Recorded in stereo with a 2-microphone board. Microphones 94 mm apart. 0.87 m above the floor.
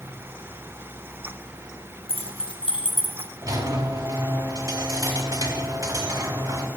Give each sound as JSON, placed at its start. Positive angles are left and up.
{"t": 2.1, "sound": "keys jangling", "side_deg": 85, "distance_m": 1.0}
{"t": 3.4, "sound": "a squeak", "side_deg": -40, "distance_m": 1.5}